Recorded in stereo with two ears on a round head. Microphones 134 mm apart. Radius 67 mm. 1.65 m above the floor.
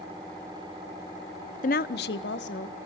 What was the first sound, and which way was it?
A woman speaking, 55° left (ahead or behind).